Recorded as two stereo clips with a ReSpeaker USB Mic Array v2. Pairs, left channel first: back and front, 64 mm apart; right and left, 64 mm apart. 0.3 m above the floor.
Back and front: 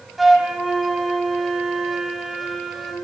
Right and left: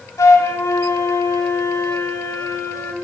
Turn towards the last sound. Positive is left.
turn(degrees=-90)